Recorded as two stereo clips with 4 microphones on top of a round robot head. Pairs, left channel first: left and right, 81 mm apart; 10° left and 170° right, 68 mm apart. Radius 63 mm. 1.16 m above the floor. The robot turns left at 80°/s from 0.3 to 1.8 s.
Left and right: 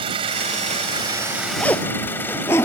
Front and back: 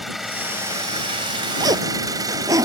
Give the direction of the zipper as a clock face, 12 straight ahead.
6 o'clock.